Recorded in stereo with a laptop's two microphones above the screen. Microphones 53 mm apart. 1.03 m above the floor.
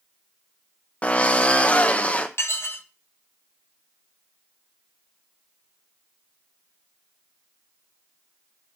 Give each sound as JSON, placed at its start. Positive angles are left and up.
{"t": 1.0, "sound": "a drill", "side_deg": 25, "distance_m": 0.7}
{"t": 2.4, "sound": "dishes clattering", "side_deg": 55, "distance_m": 0.7}